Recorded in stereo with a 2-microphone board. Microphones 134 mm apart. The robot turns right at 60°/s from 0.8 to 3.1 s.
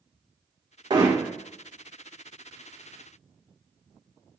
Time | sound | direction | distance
0.9 | hammering | 35° right (ahead or behind) | 2 m